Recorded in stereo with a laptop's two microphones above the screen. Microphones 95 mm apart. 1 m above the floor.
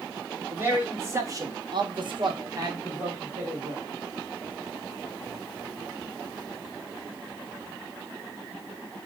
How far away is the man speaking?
About 2.0 m.